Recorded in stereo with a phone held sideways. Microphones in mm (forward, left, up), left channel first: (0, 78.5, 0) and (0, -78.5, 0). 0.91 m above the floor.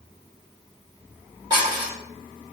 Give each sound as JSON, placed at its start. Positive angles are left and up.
{"t": 1.5, "sound": "dishes clattering", "side_deg": -25, "distance_m": 1.8}